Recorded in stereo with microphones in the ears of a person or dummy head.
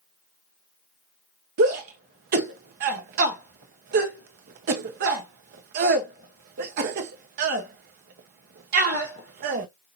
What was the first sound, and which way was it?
A shout, 50° right (ahead or behind).